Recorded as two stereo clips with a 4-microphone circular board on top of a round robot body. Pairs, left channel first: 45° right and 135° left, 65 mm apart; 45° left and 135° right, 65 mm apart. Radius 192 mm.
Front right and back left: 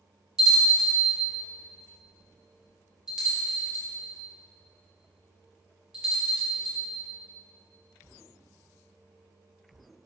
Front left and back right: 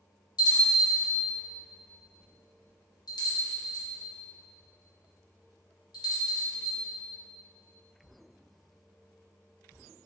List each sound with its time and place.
0.4 s a bell: 55° left, 1.2 m